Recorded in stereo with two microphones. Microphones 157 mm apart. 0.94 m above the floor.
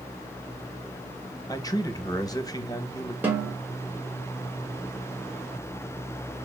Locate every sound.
1.5 s a man speaking: 20° left (ahead or behind), 0.6 m
3.2 s a snare drum: 10° right (ahead or behind), 1.5 m